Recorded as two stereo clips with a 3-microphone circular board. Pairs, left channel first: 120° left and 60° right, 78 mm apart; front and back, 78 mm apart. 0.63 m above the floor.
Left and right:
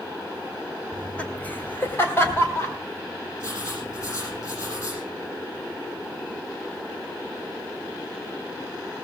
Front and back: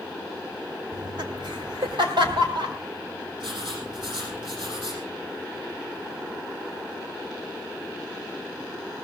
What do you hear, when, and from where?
0.9 s laughter: 160° right, 1.7 m; by 2.8 s 175° left, 4.5 m
3.4 s writing: 170° left, 7 m